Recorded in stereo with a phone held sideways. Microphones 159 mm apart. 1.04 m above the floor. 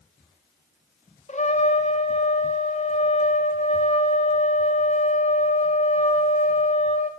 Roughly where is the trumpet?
Left.